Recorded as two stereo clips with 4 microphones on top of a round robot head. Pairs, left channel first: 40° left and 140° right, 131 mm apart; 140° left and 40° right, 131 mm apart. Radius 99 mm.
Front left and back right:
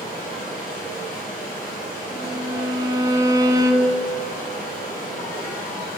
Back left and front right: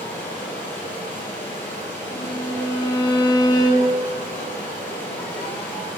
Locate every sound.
0.0 s running water: 60° left, 3 m
2.1 s a violin: 175° left, 0.8 m